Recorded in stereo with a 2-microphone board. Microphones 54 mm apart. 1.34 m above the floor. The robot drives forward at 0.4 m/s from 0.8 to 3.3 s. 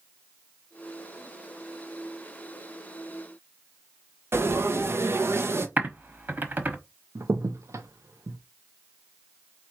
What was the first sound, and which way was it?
Frying, 50° right (ahead or behind).